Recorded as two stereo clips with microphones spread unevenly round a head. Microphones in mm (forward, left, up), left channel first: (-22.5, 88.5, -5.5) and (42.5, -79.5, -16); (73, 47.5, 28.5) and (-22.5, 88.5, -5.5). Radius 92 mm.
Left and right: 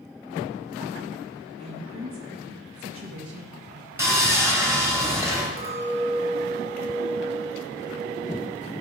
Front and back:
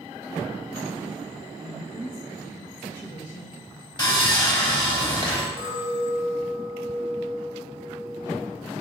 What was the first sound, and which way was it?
A woman speaking, 100° right.